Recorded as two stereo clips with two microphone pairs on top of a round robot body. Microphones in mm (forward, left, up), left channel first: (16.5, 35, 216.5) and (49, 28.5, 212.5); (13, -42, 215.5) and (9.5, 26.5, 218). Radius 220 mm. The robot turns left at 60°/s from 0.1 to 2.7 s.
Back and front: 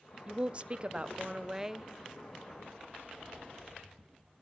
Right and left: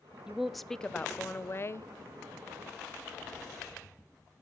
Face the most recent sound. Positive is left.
turn(degrees=-130)